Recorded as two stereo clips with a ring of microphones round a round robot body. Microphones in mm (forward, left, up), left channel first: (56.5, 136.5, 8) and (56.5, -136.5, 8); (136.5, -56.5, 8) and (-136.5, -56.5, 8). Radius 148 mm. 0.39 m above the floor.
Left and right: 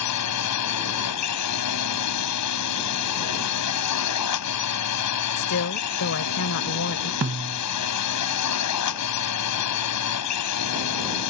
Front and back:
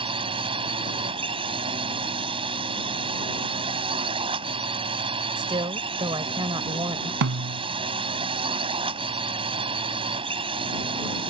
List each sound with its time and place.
0.0 s a drone: 110° left
5.4 s a woman speaking: 110° left
7.2 s a snare drum: 145° right